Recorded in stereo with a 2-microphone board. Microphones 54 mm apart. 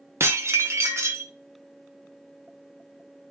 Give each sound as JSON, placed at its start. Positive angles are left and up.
{"t": 0.2, "sound": "dishes clattering", "side_deg": -60, "distance_m": 0.7}